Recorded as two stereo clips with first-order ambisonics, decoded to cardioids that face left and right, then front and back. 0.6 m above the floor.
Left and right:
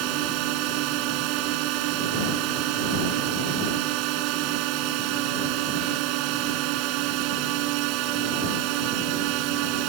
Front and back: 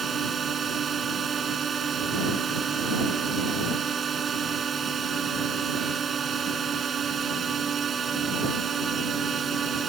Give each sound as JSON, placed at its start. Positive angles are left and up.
{"t": 0.0, "sound": "a drone", "azimuth_deg": -110}